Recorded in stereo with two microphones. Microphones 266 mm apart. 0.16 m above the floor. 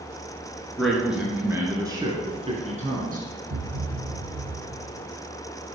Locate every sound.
0.8 s a man speaking: centre (ahead or behind), 2.5 m; by 3.2 s 35° right (ahead or behind), 2.5 m
3.5 s a thud: 65° right (ahead or behind), 1.7 m